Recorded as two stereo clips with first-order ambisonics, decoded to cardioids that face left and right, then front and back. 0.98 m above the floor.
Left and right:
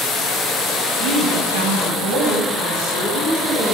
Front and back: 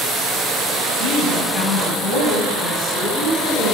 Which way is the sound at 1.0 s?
100° right.